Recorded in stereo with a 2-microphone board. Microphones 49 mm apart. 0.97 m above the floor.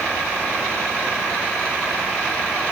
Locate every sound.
Only background noise.